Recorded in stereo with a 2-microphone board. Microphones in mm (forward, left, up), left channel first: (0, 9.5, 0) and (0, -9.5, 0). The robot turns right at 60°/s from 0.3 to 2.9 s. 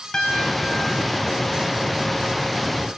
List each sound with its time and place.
0.1 s a piano: 150° left, 4.5 m; by 1.3 s 150° right, 4.5 m